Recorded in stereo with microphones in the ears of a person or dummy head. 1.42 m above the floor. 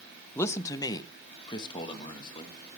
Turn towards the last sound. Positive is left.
turn(degrees=25)  # may be behind; listen again after turning